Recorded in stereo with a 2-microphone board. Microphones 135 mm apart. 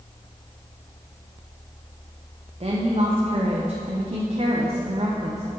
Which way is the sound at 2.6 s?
45° right (ahead or behind).